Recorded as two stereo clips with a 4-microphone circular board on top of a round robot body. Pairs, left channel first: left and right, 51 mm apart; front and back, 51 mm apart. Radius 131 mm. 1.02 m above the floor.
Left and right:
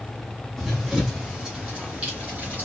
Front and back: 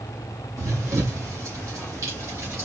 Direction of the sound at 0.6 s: Straight behind.